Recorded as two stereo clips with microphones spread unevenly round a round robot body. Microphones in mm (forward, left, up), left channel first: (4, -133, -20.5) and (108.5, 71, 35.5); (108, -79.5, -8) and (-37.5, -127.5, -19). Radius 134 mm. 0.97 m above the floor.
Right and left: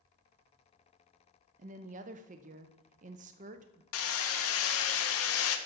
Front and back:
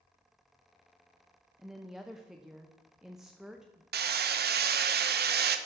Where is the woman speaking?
120° left, 0.5 m.